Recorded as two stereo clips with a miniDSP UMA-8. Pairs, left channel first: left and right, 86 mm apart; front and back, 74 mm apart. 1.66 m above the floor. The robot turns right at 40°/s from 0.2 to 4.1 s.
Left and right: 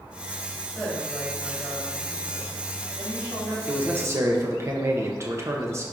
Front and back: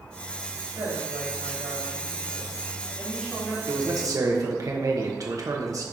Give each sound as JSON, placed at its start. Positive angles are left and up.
{"t": 0.8, "sound": "a woman speaking", "azimuth_deg": 170, "distance_m": 2.5}
{"t": 3.7, "sound": "a man speaking", "azimuth_deg": -160, "distance_m": 1.3}